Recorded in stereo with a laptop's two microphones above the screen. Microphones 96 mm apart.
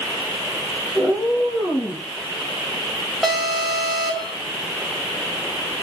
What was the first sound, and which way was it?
A cat meowing, 45° left (ahead or behind).